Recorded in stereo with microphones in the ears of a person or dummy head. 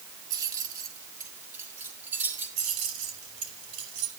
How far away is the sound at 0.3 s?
About 1.6 m.